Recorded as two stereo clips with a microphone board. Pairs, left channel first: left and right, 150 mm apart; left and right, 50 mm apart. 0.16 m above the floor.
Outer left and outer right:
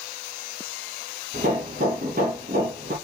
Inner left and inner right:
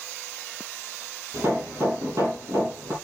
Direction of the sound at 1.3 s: 65° right (ahead or behind).